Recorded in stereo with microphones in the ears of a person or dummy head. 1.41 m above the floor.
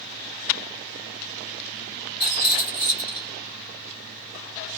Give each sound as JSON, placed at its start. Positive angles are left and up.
{"t": 2.2, "sound": "a rattle", "side_deg": 25, "distance_m": 1.0}